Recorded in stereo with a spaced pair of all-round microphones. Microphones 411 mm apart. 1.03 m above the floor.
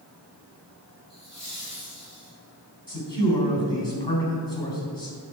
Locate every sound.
1.1 s laughter: 35° left (ahead or behind), 4 m; by 2.3 s 45° left (ahead or behind), 5 m
2.9 s a man speaking: 85° left, 4 m